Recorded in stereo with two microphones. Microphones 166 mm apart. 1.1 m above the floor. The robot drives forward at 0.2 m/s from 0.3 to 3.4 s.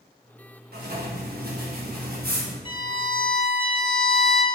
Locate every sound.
0.7 s writing: 65° right (ahead or behind), 1.4 m; by 2.5 s 60° right (ahead or behind), 1.4 m
2.6 s a violin: 30° left (ahead or behind), 0.8 m